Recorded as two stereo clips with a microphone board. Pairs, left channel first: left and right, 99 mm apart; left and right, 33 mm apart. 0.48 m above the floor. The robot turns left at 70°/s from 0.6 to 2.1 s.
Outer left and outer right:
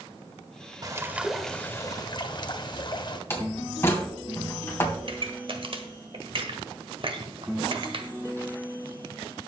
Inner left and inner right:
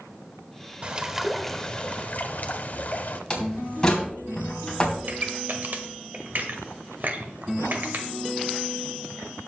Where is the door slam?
25° left (ahead or behind), 3 m.